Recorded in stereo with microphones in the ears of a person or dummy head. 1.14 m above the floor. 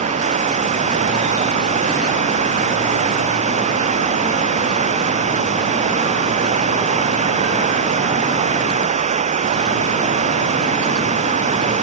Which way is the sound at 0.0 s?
40° right (ahead or behind).